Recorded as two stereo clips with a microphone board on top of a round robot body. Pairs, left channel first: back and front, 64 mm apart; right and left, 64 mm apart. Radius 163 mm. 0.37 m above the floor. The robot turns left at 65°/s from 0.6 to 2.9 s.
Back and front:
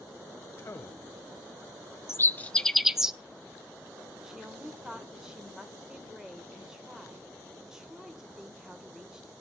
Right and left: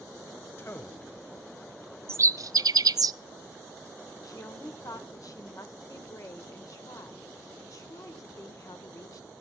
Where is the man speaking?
140° right, 2.5 m; by 1.1 s 170° right, 2.5 m.